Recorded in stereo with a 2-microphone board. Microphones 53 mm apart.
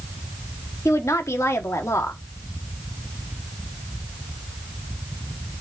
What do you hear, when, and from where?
0.8 s a woman speaking: 60° left (ahead or behind), 1.4 m